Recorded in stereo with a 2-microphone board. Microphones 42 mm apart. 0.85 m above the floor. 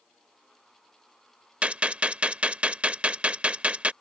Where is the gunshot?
30° right (ahead or behind).